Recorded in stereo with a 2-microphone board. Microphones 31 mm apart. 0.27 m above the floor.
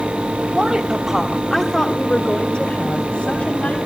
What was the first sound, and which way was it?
A woman speaking, 40° right (ahead or behind).